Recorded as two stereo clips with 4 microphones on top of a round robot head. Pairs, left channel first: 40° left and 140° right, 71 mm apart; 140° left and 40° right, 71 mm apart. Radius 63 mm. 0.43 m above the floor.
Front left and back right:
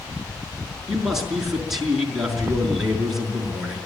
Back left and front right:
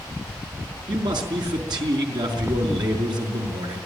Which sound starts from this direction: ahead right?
A man speaking, at 0.9 s.